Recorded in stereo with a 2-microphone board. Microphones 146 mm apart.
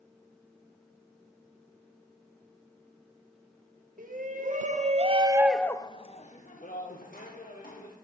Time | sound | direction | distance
4.0 | a shout | 70° right (ahead or behind) | 1.6 m